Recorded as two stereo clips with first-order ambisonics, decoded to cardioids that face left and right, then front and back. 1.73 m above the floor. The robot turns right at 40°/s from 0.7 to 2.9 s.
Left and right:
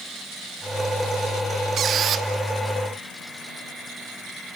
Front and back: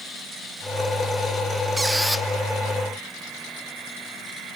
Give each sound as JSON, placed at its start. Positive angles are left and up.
{"t": 1.8, "sound": "a squeak", "azimuth_deg": -105, "distance_m": 0.6}